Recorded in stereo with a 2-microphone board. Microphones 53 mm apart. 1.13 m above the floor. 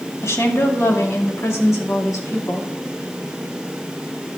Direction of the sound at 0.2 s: 70° left (ahead or behind).